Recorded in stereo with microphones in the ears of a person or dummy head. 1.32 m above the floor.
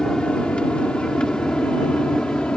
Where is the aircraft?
5° left (ahead or behind).